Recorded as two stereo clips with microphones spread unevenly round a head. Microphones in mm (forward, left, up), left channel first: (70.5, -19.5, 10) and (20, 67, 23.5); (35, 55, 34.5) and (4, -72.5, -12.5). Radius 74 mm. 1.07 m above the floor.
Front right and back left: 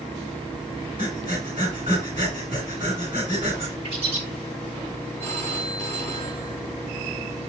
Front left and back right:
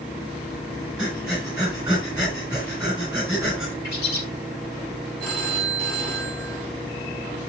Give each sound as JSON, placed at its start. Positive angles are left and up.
{"t": 1.0, "sound": "breathing", "azimuth_deg": 175, "distance_m": 6.5}
{"t": 3.8, "sound": "a bird", "azimuth_deg": 95, "distance_m": 5.5}
{"t": 5.2, "sound": "a phone ringing", "azimuth_deg": 155, "distance_m": 3.5}